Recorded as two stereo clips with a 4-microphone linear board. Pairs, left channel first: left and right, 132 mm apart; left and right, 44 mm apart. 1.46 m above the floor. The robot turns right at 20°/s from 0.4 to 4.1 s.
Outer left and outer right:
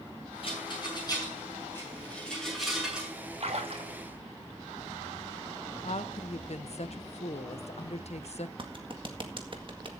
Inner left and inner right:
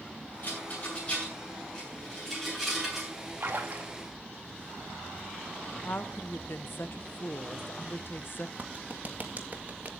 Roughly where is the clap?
Right.